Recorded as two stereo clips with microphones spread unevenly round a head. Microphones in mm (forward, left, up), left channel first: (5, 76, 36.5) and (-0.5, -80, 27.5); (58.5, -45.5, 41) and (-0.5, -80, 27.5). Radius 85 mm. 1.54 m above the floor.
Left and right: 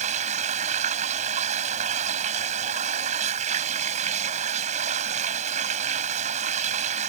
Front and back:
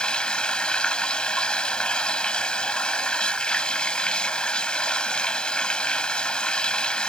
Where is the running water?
45° right.